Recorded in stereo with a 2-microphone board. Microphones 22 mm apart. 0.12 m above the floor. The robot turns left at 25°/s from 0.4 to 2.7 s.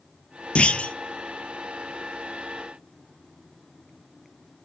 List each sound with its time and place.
0.6 s a clunk: 55° left (ahead or behind), 0.7 m; by 0.9 s 65° left (ahead or behind), 0.7 m